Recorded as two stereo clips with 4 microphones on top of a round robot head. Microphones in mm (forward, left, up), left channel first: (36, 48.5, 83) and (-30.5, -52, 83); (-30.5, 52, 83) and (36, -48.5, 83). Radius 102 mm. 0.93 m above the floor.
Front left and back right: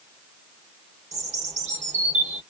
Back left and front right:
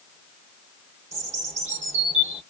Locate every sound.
1.1 s a bird: 90° right, 1.7 m